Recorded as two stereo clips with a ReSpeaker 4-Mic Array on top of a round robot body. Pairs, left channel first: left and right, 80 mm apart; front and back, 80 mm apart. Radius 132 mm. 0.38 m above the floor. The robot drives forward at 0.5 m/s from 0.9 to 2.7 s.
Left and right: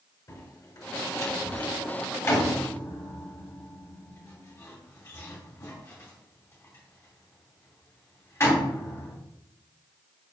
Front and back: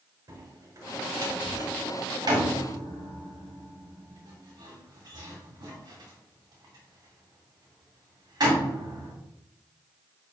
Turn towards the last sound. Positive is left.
turn(degrees=145)